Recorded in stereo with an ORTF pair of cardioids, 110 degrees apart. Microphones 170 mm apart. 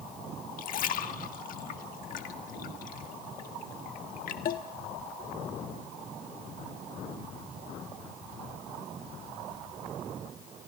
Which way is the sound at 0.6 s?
55° left.